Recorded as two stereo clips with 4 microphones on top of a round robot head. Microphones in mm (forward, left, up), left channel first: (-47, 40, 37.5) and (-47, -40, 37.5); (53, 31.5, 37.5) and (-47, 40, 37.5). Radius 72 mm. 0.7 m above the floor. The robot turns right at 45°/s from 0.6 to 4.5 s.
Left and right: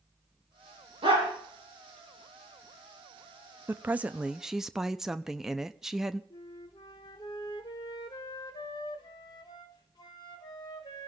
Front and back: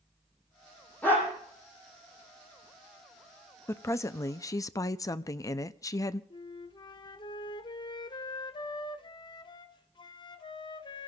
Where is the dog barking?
85° right, 8 m; by 1.3 s 70° right, 8 m.